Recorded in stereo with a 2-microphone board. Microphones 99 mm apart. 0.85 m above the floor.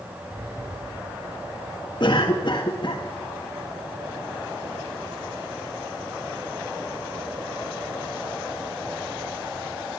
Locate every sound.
0.3 s a sliding door: 30° right (ahead or behind), 9 m
2.0 s a cough: 50° left (ahead or behind), 1.3 m